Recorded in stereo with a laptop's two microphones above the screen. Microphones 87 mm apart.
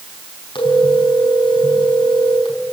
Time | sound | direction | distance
0.6 | a phone ringing | 75° left (ahead or behind) | 5 m